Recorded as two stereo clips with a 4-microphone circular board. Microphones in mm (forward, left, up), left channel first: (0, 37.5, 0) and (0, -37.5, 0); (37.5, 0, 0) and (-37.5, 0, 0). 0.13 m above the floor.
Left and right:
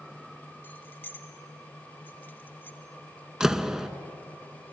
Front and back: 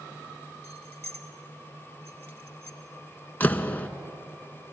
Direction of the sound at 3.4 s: 20° right.